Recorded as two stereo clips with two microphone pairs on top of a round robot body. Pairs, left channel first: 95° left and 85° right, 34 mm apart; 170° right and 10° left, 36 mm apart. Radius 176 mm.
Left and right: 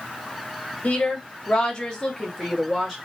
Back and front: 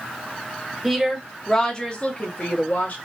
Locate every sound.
0.8 s a woman speaking: 70° left, 1.2 m; by 3.0 s straight behind, 1.5 m